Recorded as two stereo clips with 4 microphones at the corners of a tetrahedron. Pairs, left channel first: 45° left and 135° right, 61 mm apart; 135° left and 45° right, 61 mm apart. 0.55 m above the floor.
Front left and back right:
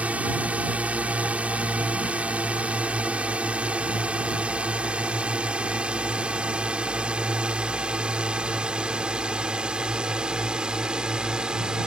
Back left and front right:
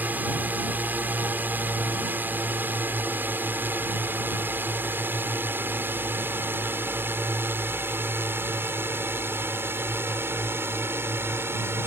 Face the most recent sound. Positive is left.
turn(degrees=-65)